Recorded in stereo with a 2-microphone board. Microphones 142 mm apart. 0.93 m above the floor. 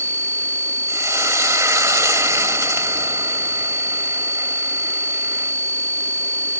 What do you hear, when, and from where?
0.9 s frying: 20° right (ahead or behind), 1.6 m